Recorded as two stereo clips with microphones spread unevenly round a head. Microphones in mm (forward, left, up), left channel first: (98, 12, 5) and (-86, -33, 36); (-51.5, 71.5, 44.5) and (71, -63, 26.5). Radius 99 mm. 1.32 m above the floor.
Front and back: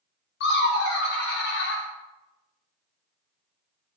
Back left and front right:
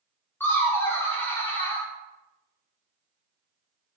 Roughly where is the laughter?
Ahead left.